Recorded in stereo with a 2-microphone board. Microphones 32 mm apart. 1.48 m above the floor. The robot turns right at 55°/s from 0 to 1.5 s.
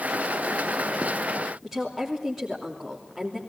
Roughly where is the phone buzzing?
I don't hear a phone buzzing.